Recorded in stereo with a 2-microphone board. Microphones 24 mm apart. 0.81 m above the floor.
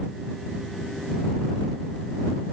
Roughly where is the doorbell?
I don't hear a doorbell.